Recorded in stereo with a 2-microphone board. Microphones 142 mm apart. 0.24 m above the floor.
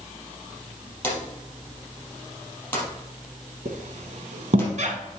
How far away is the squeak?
About 1.0 m.